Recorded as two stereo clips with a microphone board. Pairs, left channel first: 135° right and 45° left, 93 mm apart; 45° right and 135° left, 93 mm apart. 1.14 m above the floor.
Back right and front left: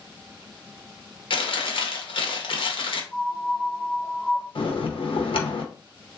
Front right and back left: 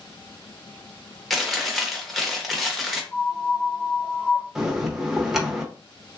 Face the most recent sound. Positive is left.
turn(degrees=-140)